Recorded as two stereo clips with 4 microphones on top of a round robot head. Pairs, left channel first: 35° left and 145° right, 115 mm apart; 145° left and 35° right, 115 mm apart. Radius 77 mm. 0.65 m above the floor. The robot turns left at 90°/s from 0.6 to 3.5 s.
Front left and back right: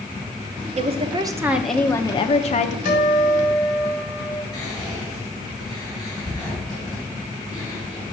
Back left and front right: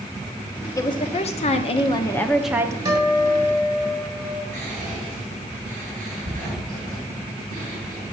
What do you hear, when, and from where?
0.8 s a woman speaking: 155° right, 0.9 m; by 2.8 s 25° left, 0.9 m
2.9 s a guitar: 25° left, 3.5 m; by 4.4 s 30° right, 3.5 m
4.5 s whispering: 30° right, 4.5 m